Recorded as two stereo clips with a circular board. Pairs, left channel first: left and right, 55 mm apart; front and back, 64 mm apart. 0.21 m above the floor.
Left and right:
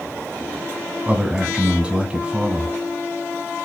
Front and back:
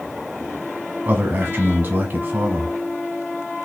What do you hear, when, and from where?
1.1 s a man speaking: 140° right, 1.3 m